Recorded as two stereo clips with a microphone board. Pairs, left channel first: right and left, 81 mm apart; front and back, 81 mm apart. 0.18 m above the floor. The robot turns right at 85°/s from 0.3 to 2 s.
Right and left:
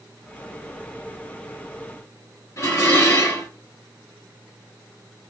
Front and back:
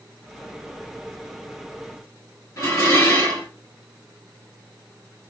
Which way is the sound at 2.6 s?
50° right.